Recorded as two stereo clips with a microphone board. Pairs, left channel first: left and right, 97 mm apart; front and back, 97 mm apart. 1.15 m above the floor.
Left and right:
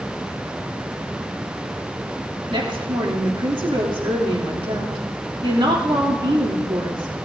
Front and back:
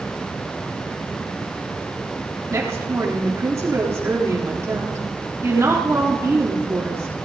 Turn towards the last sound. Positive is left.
turn(degrees=-120)